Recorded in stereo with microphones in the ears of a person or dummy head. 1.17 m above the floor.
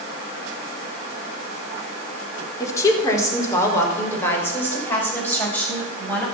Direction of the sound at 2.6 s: 20° left (ahead or behind).